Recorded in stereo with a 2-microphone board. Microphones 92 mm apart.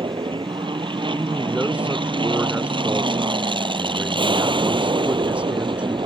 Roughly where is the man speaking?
Centre.